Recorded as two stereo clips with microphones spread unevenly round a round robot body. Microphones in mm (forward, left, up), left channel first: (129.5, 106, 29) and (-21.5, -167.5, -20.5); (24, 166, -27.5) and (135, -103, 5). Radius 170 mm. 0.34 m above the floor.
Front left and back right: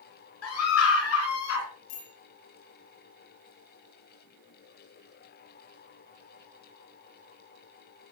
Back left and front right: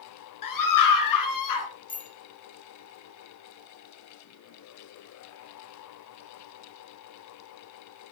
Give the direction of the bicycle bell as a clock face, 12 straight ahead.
10 o'clock.